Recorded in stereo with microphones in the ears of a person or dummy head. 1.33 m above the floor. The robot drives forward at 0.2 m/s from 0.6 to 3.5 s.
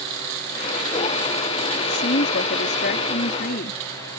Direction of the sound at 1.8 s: 55° left (ahead or behind).